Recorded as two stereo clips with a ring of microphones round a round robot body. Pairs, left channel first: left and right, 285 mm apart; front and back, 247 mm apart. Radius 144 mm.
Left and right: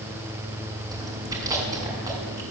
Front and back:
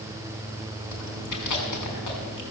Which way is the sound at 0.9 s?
10° right.